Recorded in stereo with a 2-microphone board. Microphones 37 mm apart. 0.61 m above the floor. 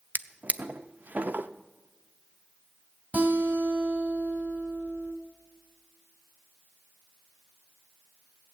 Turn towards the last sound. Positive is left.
turn(degrees=-45)  # may be behind; listen again after turning